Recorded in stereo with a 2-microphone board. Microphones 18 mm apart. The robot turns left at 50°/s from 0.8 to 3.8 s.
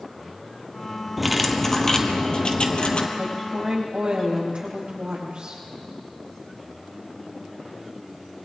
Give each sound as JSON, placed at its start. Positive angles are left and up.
{"t": 1.2, "sound": "cutlery clinking", "azimuth_deg": -170, "distance_m": 1.4}
{"t": 3.2, "sound": "a woman speaking", "azimuth_deg": -75, "distance_m": 7.5}